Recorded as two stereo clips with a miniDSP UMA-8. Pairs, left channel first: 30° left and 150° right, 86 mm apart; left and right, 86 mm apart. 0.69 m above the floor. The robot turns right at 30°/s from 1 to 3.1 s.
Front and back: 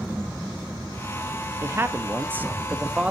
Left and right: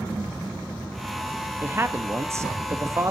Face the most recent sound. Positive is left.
turn(degrees=-80)